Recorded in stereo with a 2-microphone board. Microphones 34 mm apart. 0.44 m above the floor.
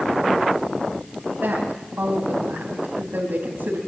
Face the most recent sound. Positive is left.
turn(degrees=-70)  # may be behind; listen again after turning